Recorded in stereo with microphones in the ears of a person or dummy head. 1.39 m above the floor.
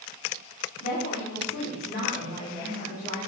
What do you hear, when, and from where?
0.8 s a woman speaking: 45° left (ahead or behind), 3 m; by 3.2 s 20° left (ahead or behind), 2.5 m